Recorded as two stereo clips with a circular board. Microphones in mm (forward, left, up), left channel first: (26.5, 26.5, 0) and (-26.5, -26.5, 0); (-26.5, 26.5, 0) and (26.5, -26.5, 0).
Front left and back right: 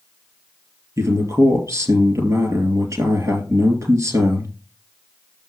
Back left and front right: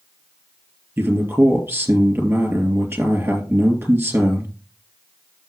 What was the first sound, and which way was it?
A man speaking, 95° right.